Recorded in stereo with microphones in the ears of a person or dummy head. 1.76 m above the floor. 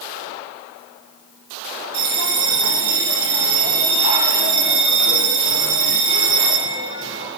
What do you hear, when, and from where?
1.9 s a bell: 65° right (ahead or behind), 5.5 m